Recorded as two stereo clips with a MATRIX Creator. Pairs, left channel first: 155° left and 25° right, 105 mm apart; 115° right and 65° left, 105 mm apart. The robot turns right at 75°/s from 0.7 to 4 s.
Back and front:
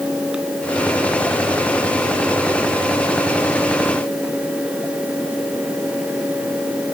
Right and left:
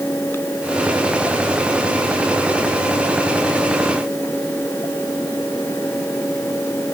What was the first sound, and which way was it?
Only background noise.